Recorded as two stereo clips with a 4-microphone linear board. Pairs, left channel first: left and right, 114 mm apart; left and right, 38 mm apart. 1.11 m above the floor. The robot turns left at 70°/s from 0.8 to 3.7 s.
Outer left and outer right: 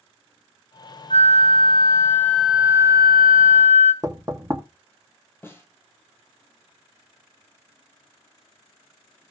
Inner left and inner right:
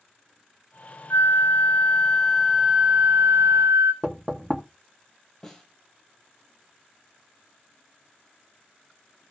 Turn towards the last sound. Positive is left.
turn(degrees=20)  # may be behind; listen again after turning